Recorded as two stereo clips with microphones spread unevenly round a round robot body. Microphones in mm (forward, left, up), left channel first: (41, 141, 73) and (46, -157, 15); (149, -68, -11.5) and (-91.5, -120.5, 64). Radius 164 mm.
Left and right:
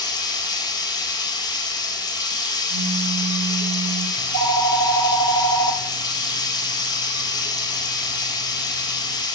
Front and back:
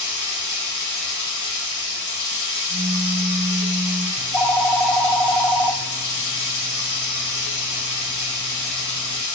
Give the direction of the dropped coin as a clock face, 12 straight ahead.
No dropped coin in this recording.